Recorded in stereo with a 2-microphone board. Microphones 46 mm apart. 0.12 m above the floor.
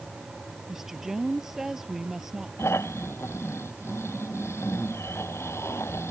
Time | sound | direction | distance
0.7 | a woman speaking | 10° right (ahead or behind) | ?
2.6 | snoring | 65° left (ahead or behind) | ?